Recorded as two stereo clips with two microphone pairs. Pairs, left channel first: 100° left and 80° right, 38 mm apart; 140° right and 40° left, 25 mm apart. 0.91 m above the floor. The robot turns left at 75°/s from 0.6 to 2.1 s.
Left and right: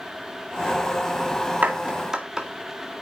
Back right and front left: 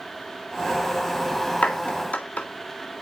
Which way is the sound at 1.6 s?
115° right.